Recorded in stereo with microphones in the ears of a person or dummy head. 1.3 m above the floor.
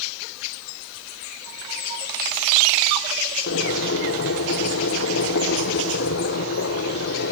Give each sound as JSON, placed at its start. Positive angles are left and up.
{"t": 3.5, "sound": "boiling", "side_deg": 60, "distance_m": 8.0}